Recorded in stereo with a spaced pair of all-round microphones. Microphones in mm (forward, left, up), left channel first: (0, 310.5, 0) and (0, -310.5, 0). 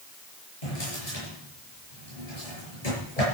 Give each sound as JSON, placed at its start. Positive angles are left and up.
{"t": 0.6, "sound": "a drawer", "side_deg": 70, "distance_m": 7.0}